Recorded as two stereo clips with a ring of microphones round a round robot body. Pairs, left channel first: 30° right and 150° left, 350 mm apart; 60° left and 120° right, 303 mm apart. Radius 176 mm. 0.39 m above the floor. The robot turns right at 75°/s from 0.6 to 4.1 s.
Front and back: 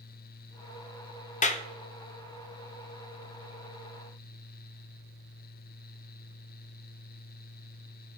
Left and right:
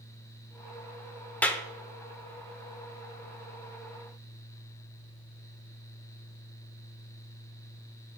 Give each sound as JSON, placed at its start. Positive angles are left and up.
{"t": 1.4, "sound": "a clap", "azimuth_deg": -15, "distance_m": 0.6}